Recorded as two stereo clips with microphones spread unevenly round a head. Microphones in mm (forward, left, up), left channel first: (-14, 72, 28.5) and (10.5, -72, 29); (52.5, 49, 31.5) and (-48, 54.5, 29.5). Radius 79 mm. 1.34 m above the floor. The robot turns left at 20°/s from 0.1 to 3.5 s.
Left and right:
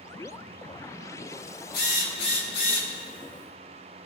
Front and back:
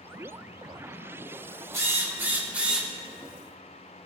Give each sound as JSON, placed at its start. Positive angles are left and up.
{"t": 1.7, "sound": "a drill", "azimuth_deg": 120, "distance_m": 4.5}